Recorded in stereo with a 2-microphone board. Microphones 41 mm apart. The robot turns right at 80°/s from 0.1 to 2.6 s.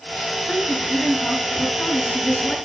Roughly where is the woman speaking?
Ahead.